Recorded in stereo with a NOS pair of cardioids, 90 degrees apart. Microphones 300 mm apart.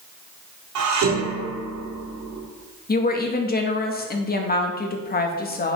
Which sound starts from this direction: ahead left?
A woman speaking, at 2.9 s.